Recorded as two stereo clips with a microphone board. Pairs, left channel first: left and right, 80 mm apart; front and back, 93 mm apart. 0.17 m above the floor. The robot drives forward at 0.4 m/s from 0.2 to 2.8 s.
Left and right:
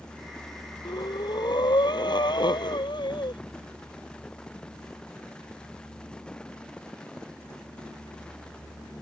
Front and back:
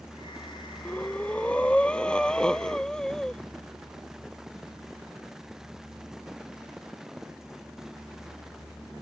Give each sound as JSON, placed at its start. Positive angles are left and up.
{"t": 0.8, "sound": "breathing", "azimuth_deg": 75}